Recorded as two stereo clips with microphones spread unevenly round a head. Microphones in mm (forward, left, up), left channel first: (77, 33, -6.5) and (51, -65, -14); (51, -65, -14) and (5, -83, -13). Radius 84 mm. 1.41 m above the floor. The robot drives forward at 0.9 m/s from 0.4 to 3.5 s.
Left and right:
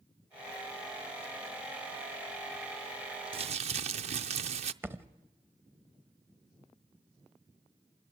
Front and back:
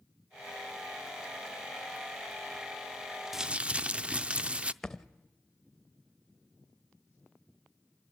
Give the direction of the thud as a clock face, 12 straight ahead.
2 o'clock.